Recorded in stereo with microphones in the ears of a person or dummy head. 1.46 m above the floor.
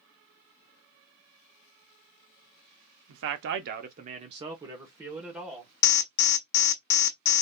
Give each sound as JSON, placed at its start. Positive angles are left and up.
{"t": 3.1, "sound": "a man speaking", "side_deg": -75, "distance_m": 0.7}
{"t": 5.8, "sound": "an alarm", "side_deg": 50, "distance_m": 0.6}